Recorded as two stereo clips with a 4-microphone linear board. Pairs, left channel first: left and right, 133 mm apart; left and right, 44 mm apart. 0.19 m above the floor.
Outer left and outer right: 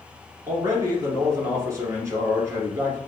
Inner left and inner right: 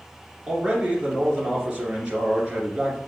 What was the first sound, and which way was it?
A man speaking, 25° right (ahead or behind).